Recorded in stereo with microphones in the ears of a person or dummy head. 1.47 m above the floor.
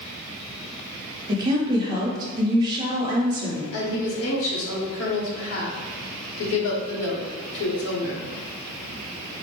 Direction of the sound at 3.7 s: 80° left.